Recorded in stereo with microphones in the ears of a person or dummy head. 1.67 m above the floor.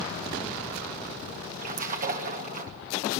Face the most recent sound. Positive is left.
turn(degrees=-45)  # may be behind; listen again after turning